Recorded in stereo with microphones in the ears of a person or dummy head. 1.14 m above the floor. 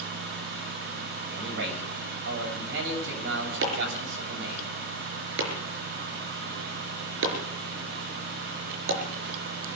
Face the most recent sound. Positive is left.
turn(degrees=-75)  # may be behind; listen again after turning